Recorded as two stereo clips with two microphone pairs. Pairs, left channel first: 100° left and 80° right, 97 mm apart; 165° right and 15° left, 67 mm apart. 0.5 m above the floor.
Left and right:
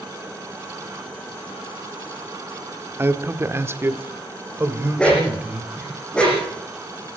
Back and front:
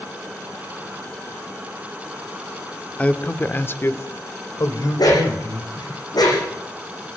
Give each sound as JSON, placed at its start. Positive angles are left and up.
{"t": 3.0, "sound": "a man speaking", "azimuth_deg": -115, "distance_m": 1.5}
{"t": 5.0, "sound": "a dog barking", "azimuth_deg": 180, "distance_m": 7.5}